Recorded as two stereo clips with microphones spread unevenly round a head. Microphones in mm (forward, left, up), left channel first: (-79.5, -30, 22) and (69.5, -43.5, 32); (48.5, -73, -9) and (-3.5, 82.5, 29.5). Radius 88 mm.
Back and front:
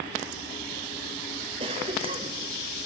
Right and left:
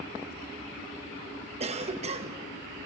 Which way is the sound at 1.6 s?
55° left.